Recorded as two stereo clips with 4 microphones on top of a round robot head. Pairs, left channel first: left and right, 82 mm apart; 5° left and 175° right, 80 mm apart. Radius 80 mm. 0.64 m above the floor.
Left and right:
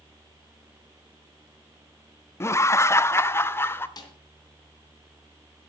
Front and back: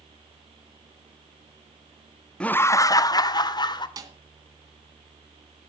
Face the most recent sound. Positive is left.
turn(degrees=140)